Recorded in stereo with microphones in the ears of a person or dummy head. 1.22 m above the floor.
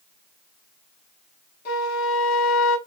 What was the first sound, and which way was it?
A flute, 85° left.